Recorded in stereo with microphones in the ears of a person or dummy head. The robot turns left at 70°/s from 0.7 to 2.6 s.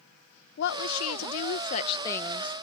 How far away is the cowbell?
I don't hear a cowbell.